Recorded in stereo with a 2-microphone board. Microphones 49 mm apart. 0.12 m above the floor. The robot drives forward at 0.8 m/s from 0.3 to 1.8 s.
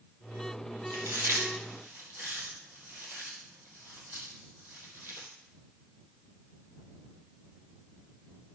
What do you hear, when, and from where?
0.9 s chewing: 65° right (ahead or behind), 2 m; by 5.3 s 55° right (ahead or behind), 2.5 m